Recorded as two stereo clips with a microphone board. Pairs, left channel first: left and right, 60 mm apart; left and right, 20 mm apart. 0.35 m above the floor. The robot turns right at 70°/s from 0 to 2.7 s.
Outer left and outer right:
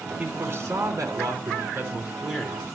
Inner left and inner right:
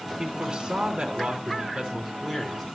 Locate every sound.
0.2 s a man speaking: 160° right, 3 m; by 2.6 s 10° left, 3 m